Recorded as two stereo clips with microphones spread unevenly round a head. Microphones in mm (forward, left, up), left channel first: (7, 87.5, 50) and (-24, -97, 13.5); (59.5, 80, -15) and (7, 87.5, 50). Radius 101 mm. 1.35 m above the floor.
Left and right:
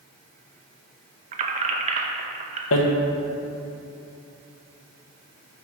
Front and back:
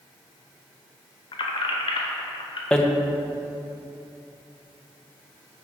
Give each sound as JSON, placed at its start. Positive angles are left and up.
{"t": 1.3, "sound": "keys jangling", "azimuth_deg": -90, "distance_m": 0.5}
{"t": 2.7, "sound": "hammering", "azimuth_deg": 85, "distance_m": 0.8}